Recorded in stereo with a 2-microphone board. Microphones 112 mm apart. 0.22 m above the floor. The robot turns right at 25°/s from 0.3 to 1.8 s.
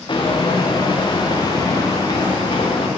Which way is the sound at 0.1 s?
45° left (ahead or behind).